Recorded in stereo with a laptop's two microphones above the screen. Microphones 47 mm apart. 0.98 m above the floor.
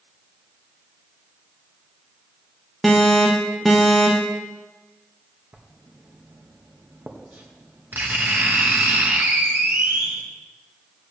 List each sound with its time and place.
2.8 s an alarm: centre (ahead or behind), 1.3 m
5.5 s writing: 40° right (ahead or behind), 1.3 m